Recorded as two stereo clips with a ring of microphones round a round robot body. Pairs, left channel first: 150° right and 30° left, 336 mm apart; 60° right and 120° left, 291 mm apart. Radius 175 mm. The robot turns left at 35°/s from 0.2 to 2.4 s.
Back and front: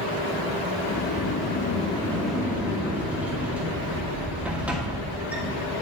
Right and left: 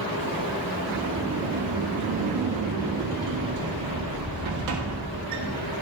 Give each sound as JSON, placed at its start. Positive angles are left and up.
{"t": 0.9, "sound": "a sliding door", "azimuth_deg": 170, "distance_m": 1.5}